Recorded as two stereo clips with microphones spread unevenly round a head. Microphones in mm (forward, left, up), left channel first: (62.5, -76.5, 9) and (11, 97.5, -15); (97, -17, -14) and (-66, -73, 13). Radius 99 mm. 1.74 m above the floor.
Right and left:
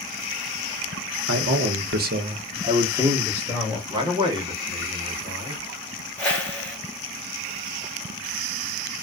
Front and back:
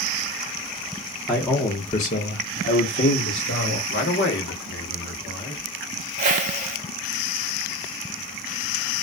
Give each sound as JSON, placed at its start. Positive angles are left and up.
{"t": 1.3, "sound": "a man speaking", "azimuth_deg": 110, "distance_m": 0.8}
{"t": 3.9, "sound": "a man speaking", "azimuth_deg": 40, "distance_m": 0.9}
{"t": 6.2, "sound": "a whoosh", "azimuth_deg": -150, "distance_m": 0.7}